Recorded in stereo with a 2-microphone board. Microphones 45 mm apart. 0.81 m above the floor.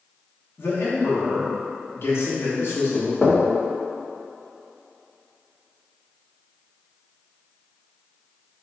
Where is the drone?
No drone in this recording.